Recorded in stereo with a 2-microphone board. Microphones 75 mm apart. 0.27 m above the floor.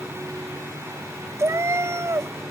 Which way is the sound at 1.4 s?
40° right (ahead or behind).